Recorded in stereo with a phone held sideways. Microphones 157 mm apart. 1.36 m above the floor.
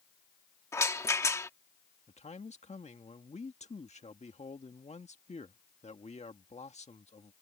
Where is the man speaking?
45° left (ahead or behind).